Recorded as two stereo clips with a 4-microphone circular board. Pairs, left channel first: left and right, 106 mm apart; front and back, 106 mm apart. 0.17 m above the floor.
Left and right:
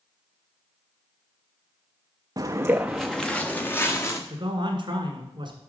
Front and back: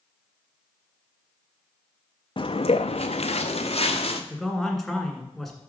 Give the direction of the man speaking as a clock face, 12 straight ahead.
3 o'clock.